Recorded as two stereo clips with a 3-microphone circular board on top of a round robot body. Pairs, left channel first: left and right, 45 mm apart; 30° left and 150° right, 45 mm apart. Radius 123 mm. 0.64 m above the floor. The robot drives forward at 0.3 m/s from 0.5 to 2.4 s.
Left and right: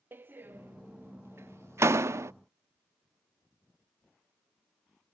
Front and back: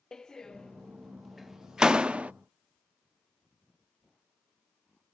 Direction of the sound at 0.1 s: 45° right.